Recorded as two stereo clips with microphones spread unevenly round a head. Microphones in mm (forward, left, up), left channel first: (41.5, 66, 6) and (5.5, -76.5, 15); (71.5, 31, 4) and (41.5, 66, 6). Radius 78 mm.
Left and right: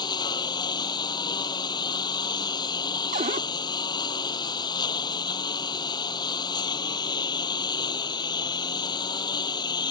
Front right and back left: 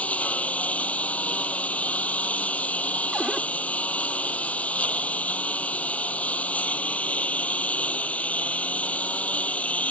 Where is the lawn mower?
10° left.